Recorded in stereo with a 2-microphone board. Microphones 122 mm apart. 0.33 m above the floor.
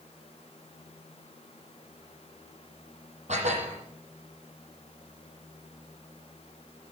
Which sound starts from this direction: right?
Dishes clattering, at 3.3 s.